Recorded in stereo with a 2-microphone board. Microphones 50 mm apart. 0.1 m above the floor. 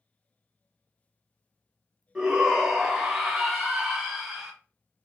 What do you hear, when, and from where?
2.1 s a shout: 15° right (ahead or behind), 1.1 m